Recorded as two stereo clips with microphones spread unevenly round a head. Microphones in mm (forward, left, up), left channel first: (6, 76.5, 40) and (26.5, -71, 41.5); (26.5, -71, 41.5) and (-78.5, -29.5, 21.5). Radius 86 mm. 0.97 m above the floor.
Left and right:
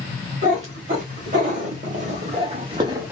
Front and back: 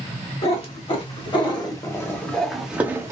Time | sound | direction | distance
0.4 | a cat meowing | 45° right | 1.4 m